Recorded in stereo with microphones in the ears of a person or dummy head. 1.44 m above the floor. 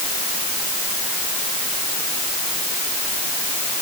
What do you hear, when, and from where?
Only background noise.